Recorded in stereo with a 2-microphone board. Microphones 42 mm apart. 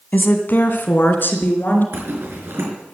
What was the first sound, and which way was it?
A woman speaking, 50° left (ahead or behind).